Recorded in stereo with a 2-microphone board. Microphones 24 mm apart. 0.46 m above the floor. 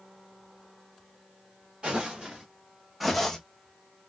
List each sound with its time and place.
1.8 s footsteps: 40° right (ahead or behind), 2.0 m; by 3.4 s 15° left (ahead or behind), 1.0 m